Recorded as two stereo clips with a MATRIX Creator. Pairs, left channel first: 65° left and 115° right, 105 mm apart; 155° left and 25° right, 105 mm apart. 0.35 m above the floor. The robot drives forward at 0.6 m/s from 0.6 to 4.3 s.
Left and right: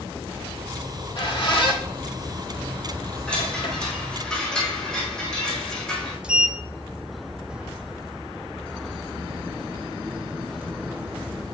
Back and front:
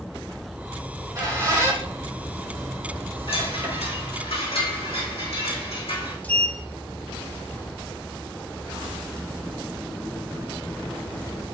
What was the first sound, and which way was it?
A squeak, 35° left.